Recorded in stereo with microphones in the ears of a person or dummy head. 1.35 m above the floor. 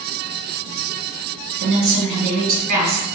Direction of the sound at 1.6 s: 55° right (ahead or behind).